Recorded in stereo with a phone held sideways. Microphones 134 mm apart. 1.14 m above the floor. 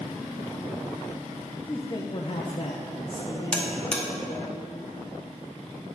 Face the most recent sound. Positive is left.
turn(degrees=5)  # may be behind; listen again after turning